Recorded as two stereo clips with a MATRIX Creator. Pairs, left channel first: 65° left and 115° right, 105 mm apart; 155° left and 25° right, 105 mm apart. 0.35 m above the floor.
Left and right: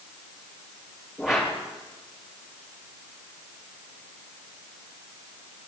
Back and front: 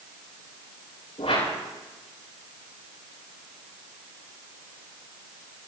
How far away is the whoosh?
About 7 m.